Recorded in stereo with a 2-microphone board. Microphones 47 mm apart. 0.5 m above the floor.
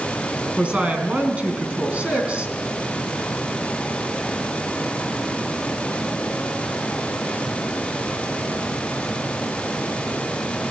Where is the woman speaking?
30° right (ahead or behind), 4.5 m.